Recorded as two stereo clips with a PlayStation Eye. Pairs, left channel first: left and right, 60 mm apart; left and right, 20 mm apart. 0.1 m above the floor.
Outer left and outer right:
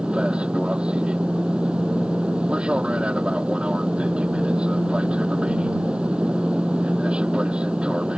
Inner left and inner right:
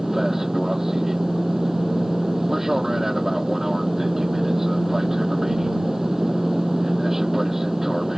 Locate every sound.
0.0 s an aircraft: 15° right (ahead or behind)